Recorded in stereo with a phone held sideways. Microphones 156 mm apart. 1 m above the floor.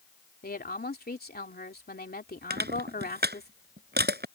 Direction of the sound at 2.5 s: 80° right.